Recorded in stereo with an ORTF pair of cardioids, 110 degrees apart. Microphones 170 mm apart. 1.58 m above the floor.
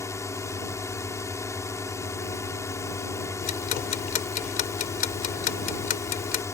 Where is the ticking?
55° left.